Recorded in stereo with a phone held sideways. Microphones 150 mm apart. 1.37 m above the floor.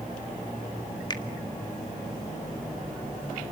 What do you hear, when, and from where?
1.1 s a finger snap: 30° left (ahead or behind), 1.6 m